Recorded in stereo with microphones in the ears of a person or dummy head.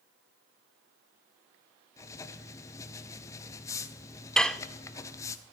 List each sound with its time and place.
2.0 s writing: 15° left (ahead or behind), 0.9 m
4.4 s dishes clattering: centre (ahead or behind), 0.6 m